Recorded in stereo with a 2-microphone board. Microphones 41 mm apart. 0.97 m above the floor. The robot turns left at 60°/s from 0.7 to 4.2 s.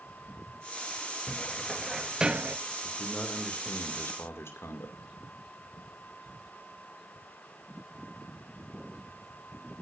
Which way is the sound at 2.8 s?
175° left.